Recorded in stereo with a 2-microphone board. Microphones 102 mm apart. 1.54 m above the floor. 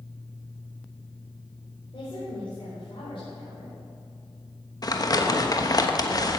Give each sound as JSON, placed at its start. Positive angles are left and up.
{"t": 1.9, "sound": "a woman speaking", "side_deg": 60, "distance_m": 4.5}
{"t": 4.8, "sound": "crumpling", "side_deg": 40, "distance_m": 1.1}